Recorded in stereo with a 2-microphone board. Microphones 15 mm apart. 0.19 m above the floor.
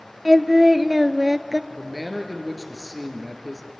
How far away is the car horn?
No car horn in this recording.